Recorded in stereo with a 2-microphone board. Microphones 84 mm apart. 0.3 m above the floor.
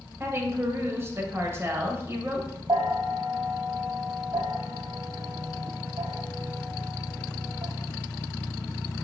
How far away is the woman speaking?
About 1.0 m.